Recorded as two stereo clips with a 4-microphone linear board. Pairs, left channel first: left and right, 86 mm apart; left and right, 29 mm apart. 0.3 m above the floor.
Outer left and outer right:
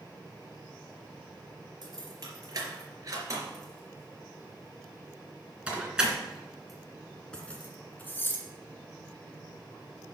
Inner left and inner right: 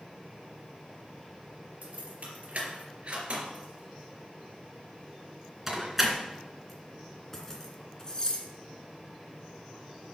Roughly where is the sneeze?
No sneeze in this recording.